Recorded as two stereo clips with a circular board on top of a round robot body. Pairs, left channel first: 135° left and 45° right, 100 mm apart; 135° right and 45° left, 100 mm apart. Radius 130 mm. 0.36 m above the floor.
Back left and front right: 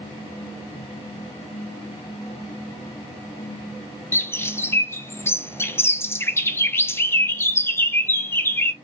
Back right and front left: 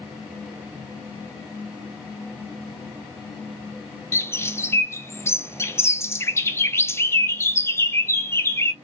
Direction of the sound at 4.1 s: Straight behind.